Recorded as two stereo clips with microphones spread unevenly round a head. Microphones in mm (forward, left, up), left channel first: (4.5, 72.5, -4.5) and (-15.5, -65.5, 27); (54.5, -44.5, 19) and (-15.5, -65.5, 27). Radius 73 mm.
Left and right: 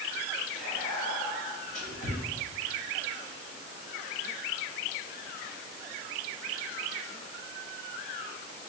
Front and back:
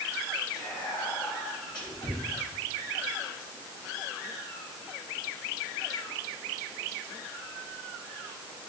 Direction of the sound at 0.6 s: 55° left.